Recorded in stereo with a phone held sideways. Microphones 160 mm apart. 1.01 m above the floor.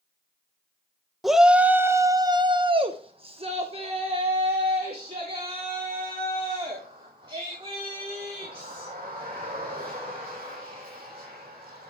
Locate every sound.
1.2 s a shout: centre (ahead or behind), 1.0 m; by 11.9 s 30° right (ahead or behind), 6.5 m